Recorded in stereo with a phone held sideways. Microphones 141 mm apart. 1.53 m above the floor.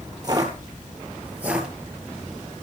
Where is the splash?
No splash in this recording.